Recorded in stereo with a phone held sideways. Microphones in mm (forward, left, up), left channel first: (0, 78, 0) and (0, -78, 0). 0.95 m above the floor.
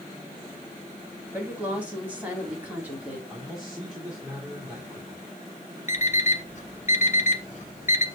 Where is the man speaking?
5° right (ahead or behind), 2 m.